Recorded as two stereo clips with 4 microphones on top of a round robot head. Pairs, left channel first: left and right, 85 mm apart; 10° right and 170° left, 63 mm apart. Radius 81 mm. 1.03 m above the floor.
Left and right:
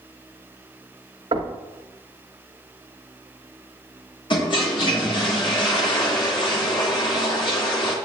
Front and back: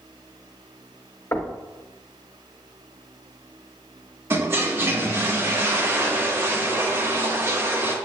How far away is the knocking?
About 1.2 m.